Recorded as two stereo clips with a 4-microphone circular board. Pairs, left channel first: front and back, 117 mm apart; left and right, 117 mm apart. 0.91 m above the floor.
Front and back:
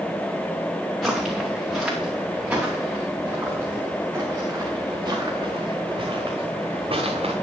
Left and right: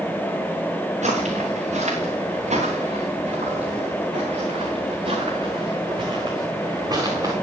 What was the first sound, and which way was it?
Footsteps, 90° right.